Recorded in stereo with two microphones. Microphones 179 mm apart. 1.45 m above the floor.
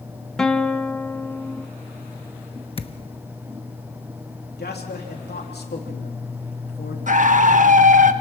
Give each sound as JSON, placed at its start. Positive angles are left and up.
{"t": 0.4, "sound": "a guitar", "side_deg": 5, "distance_m": 0.9}
{"t": 2.8, "sound": "a thud", "side_deg": 30, "distance_m": 0.9}
{"t": 4.6, "sound": "a man speaking", "side_deg": 65, "distance_m": 3.0}
{"t": 7.1, "sound": "a scream", "side_deg": -45, "distance_m": 1.4}